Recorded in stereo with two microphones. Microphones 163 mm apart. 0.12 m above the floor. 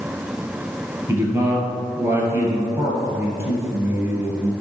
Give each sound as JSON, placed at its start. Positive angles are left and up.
{"t": 1.1, "sound": "a man speaking", "side_deg": -15, "distance_m": 1.8}